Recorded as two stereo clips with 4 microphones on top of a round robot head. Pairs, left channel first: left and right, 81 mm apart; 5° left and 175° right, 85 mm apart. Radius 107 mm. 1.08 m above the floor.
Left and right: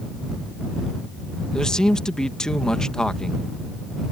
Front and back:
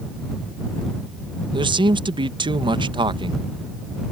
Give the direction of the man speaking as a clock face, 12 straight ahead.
6 o'clock.